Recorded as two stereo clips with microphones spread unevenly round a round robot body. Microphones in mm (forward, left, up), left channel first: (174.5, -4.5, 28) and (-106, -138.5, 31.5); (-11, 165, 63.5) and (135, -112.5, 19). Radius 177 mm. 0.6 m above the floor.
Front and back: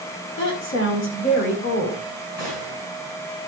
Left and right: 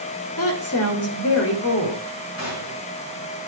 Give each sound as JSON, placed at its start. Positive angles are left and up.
{"t": 0.4, "sound": "a woman speaking", "azimuth_deg": 75, "distance_m": 2.0}
{"t": 2.4, "sound": "a gunshot", "azimuth_deg": 70, "distance_m": 5.5}